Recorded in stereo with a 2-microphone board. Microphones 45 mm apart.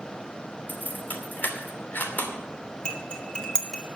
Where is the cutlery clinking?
20° left (ahead or behind), 2 m.